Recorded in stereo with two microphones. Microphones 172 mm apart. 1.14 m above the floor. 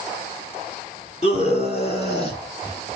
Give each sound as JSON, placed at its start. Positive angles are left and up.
{"t": 1.2, "sound": "a scream", "side_deg": 40, "distance_m": 3.0}